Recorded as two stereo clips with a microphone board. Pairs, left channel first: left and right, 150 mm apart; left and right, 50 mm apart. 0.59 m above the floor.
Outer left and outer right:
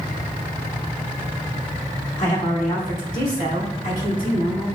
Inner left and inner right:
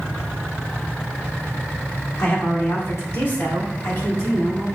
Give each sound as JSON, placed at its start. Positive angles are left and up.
{"t": 2.2, "sound": "a woman speaking", "side_deg": 50, "distance_m": 1.2}